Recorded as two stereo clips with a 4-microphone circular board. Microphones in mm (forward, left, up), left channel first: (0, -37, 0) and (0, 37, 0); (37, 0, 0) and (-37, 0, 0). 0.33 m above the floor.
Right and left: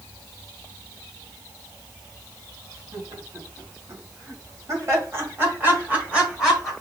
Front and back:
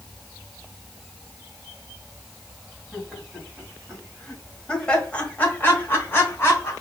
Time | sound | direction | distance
2.9 | laughter | 90° left | 3 m